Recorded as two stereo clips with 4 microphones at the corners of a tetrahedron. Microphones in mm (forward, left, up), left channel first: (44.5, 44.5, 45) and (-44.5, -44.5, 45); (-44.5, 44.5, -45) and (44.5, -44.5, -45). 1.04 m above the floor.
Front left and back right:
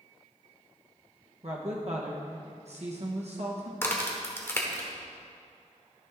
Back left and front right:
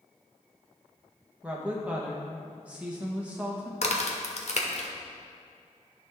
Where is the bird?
No bird in this recording.